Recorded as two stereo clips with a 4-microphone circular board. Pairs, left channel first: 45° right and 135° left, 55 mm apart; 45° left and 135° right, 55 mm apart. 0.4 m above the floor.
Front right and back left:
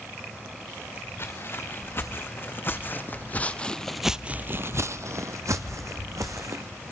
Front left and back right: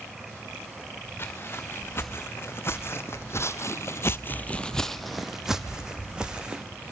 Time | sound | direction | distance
1.2 | footsteps | 5° right | 2.5 m